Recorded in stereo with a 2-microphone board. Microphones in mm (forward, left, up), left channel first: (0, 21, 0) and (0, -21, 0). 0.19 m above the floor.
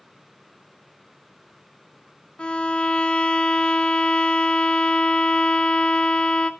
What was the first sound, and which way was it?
A violin, 20° left (ahead or behind).